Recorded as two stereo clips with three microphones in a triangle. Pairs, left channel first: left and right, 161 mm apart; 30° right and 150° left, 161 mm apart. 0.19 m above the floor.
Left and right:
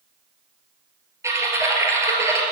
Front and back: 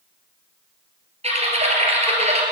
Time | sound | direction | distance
1.2 | typing on a keyboard | 160° right | 2.5 m